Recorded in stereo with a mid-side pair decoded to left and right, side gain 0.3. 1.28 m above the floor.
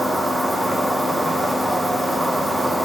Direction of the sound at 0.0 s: 25° right.